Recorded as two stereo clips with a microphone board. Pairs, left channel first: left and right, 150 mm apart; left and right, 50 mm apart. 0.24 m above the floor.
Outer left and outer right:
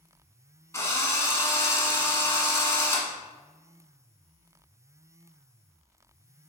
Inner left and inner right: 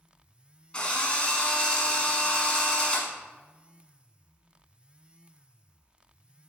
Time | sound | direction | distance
0.7 | a drill | 20° left (ahead or behind) | 1.5 m